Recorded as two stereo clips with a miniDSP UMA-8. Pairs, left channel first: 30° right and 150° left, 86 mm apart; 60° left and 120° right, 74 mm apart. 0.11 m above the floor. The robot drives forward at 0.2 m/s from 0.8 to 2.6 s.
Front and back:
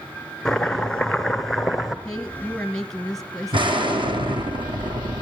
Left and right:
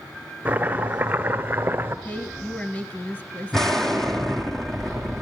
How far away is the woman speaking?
About 1.3 m.